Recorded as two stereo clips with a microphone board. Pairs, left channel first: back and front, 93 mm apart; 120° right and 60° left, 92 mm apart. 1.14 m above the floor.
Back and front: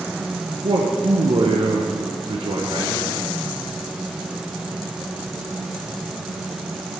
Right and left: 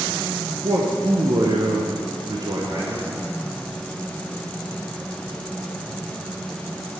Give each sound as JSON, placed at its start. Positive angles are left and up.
{"t": 0.6, "sound": "a man speaking", "azimuth_deg": 20, "distance_m": 0.7}